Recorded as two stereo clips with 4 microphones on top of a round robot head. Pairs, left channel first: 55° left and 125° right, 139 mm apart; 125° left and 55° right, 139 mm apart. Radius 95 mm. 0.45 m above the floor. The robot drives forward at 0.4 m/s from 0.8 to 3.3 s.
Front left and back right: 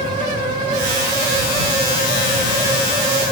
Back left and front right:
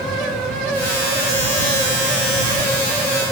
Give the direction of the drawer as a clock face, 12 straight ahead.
I don't hear a drawer.